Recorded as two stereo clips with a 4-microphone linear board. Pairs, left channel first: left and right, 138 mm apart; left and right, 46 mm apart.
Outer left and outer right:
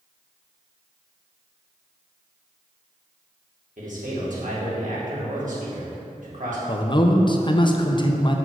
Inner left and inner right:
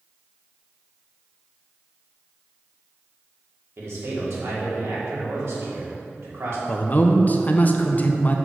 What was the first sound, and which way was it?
A man speaking, 70° right (ahead or behind).